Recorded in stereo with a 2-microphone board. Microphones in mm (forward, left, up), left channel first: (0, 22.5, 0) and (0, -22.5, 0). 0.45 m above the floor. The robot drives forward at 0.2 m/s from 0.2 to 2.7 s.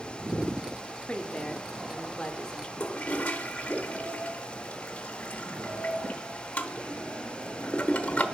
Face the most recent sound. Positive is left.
turn(degrees=30)  # may be behind; listen again after turning